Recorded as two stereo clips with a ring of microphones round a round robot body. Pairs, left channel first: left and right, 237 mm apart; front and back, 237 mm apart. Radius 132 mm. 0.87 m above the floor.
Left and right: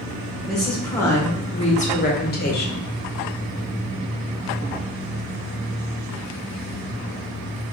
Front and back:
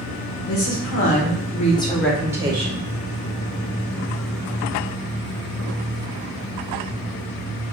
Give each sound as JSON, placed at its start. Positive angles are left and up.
{"t": 0.5, "sound": "a woman speaking", "azimuth_deg": 0, "distance_m": 1.1}